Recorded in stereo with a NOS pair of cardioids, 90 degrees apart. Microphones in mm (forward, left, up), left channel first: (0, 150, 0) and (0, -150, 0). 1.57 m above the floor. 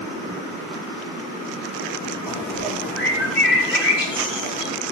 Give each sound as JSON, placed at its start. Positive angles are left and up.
{"t": 2.3, "sound": "a bird", "azimuth_deg": 40, "distance_m": 3.0}